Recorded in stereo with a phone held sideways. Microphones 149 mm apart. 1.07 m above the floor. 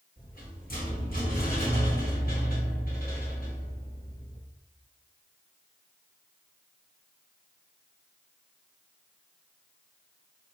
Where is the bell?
No bell in this recording.